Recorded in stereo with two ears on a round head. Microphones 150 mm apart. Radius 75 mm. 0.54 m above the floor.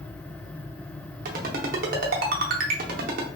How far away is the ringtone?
About 0.6 m.